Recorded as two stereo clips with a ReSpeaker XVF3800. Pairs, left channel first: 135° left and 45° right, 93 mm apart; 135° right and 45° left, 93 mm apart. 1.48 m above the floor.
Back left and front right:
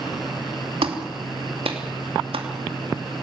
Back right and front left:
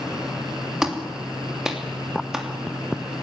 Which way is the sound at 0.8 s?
40° right.